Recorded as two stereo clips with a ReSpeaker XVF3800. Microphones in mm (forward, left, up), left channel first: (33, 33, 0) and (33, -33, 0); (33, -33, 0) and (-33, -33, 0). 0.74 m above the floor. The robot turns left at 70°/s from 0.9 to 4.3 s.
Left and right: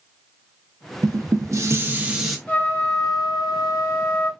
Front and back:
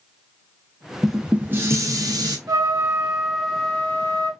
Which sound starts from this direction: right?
Dishes clattering, at 1.0 s.